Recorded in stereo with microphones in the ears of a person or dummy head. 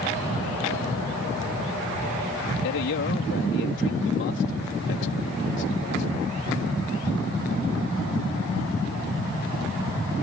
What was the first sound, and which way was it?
A man speaking, 65° left (ahead or behind).